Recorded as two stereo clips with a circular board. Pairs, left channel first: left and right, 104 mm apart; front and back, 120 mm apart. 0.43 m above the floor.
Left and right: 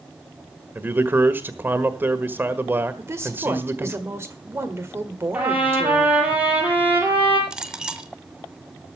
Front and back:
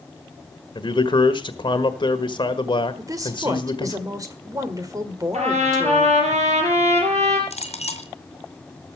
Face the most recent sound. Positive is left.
turn(degrees=-5)